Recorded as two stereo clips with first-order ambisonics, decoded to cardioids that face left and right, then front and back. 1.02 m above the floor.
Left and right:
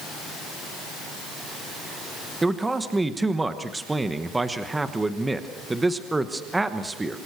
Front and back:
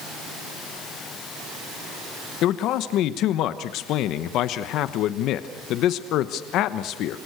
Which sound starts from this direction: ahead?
A man speaking, at 2.4 s.